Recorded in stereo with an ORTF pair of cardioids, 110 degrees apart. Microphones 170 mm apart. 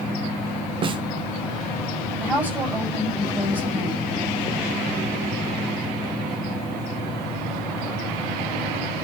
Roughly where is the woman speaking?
Ahead.